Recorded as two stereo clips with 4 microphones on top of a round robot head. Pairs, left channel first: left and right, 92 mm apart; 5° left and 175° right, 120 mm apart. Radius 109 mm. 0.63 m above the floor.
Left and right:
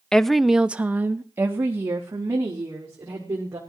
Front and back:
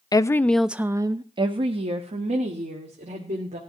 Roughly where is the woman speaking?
Ahead.